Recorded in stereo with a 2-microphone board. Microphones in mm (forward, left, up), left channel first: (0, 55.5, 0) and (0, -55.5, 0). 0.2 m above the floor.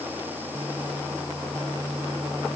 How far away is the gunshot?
No gunshot in this recording.